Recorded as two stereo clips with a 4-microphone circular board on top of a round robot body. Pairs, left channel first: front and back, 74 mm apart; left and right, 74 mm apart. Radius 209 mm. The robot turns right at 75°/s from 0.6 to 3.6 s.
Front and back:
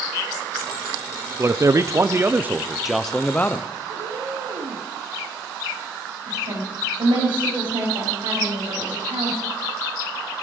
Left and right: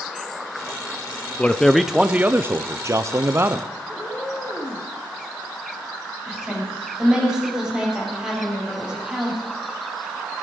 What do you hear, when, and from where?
1.4 s a man speaking: 155° left, 0.8 m; by 3.7 s 40° right, 0.8 m
3.9 s a cat meowing: 165° left, 3 m
6.3 s a woman speaking: 170° right, 6 m